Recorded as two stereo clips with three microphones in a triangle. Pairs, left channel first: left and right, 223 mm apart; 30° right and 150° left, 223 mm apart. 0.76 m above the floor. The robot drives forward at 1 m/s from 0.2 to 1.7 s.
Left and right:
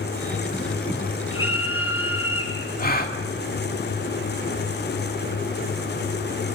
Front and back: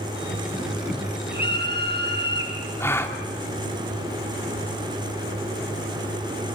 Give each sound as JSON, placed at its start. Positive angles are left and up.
{"t": 1.3, "sound": "a scream", "azimuth_deg": 105, "distance_m": 8.5}
{"t": 2.8, "sound": "a gasp", "azimuth_deg": 45, "distance_m": 2.5}